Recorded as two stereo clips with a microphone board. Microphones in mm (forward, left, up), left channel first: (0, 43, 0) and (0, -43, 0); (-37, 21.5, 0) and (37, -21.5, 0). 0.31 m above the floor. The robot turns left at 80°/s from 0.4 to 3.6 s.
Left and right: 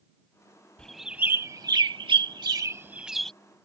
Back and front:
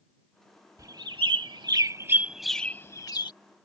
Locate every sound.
0.8 s a bird: 15° left; by 3.3 s 170° left